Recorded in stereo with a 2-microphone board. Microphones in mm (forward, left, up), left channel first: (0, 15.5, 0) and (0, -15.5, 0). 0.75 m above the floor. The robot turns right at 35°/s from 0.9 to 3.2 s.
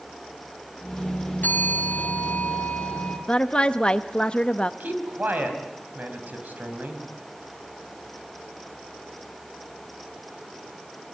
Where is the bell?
85° left, 4 m; by 3.2 s 145° left, 4 m.